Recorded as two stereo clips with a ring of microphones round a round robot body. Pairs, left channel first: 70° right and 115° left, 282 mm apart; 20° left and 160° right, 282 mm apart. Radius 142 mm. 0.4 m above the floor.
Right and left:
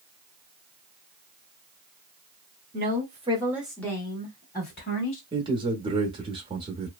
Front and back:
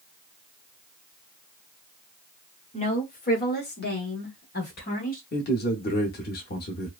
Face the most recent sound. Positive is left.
turn(degrees=50)